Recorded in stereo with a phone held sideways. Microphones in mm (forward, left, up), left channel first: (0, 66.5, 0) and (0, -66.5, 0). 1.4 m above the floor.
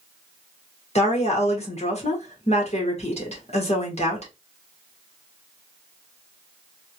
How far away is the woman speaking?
About 1.6 m.